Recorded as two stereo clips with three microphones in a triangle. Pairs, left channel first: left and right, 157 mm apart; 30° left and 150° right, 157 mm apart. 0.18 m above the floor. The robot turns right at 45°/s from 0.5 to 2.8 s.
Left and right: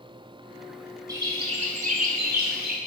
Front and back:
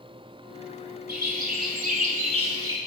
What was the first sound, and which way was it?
A bird, 160° right.